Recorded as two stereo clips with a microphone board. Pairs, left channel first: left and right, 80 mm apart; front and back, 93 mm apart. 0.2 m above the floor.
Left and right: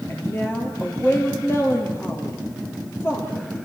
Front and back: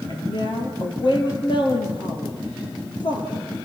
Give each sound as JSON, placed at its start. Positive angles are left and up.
{"t": 0.1, "sound": "a woman speaking", "azimuth_deg": 30, "distance_m": 5.0}